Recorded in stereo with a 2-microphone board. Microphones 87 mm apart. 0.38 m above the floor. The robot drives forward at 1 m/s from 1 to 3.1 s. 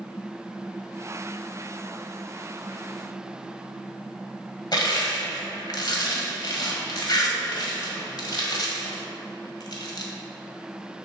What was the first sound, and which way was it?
Crushing, 55° left (ahead or behind).